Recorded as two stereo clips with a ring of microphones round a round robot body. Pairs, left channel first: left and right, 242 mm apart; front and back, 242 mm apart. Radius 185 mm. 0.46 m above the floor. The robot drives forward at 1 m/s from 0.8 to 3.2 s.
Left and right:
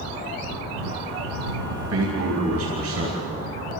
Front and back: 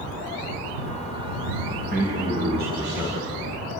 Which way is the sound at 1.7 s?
115° right.